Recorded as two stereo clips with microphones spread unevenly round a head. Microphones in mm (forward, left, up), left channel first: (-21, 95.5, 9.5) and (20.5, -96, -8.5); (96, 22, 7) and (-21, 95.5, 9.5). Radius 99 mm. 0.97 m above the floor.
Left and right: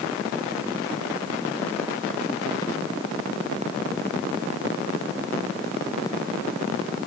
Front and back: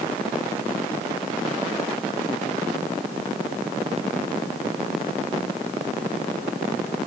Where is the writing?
I don't hear writing.